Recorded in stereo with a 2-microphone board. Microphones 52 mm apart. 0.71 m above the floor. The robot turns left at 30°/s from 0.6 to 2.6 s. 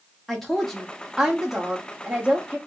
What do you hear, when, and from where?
0.3 s a woman speaking: 10° left, 1.1 m; by 2.6 s 50° right, 1.1 m